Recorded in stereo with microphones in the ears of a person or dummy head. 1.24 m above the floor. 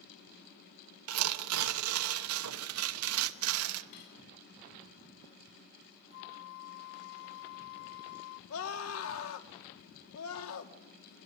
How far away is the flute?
About 0.7 m.